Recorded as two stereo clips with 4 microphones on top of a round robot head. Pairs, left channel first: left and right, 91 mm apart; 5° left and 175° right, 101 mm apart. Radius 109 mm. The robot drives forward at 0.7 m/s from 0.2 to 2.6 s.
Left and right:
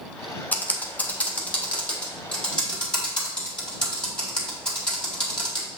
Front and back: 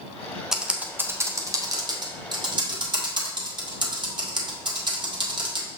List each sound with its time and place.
0.5 s typing on a keyboard: 110° left, 1.2 m; by 5.7 s 165° left, 2.0 m